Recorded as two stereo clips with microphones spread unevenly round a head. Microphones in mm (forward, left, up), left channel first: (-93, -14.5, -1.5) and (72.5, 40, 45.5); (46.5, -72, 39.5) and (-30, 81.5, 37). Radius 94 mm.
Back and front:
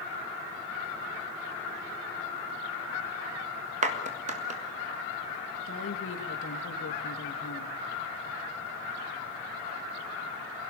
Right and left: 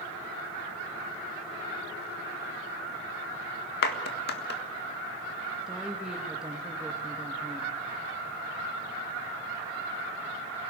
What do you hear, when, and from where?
3.8 s a clap: 30° right, 1.7 m
5.7 s a woman speaking: 155° right, 2 m